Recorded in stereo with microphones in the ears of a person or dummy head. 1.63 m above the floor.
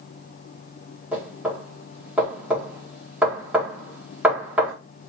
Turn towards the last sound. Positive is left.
turn(degrees=-10)  # may be behind; listen again after turning